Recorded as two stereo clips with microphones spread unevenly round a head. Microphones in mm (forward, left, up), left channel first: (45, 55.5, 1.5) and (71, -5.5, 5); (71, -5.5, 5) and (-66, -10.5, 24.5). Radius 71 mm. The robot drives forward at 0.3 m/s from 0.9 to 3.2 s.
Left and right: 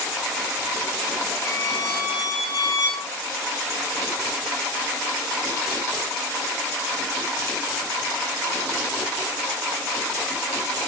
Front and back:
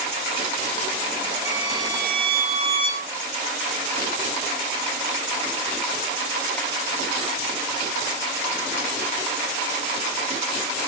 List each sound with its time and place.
1.4 s a violin: 120° left, 1.3 m; by 3.1 s 140° left, 1.6 m